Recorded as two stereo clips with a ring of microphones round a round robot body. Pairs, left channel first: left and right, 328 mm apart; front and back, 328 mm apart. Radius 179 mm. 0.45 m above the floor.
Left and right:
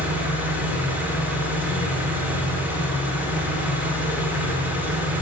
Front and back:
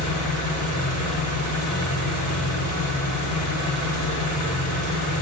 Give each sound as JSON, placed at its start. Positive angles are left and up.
{"t": 0.0, "sound": "an engine running", "azimuth_deg": -5, "distance_m": 1.2}